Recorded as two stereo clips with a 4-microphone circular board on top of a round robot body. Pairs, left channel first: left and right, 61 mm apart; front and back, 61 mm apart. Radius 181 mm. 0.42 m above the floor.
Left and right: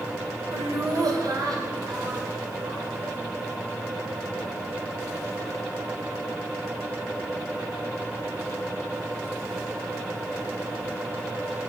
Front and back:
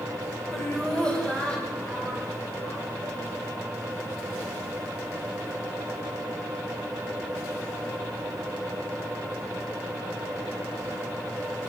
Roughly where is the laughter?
Right.